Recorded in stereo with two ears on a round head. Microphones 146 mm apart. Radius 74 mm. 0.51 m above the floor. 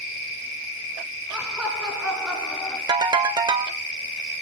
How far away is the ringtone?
About 1.0 m.